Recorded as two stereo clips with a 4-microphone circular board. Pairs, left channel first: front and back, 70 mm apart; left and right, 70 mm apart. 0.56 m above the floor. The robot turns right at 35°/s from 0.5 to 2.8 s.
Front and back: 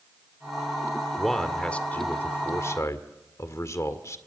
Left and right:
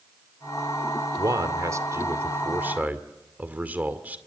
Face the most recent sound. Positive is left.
turn(degrees=-30)